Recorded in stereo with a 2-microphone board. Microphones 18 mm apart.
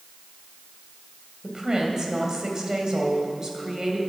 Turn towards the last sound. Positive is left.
turn(degrees=-35)  # may be behind; listen again after turning